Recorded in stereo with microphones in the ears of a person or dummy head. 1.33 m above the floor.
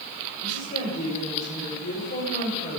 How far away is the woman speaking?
About 4.5 m.